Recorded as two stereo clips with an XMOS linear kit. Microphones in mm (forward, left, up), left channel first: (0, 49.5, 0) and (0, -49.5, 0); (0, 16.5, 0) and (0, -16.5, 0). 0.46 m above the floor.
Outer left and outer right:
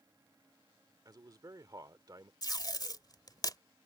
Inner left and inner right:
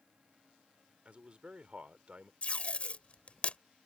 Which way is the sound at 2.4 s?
45° left (ahead or behind).